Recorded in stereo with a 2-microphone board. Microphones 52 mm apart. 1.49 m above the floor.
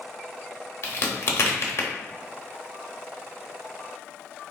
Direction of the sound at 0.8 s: 55° left (ahead or behind).